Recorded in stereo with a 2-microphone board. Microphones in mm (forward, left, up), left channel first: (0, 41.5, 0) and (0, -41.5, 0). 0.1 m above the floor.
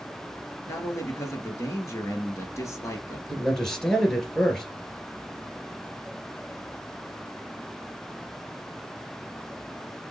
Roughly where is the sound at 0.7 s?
Left.